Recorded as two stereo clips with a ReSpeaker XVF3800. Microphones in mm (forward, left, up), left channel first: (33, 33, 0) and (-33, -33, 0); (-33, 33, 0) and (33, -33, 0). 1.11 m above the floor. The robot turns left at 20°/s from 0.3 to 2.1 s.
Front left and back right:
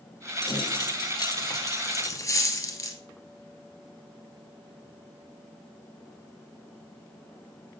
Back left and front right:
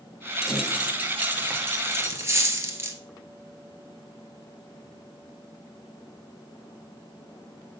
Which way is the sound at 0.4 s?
40° left.